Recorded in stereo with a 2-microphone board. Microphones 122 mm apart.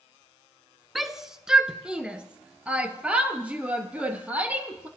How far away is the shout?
About 1.1 m.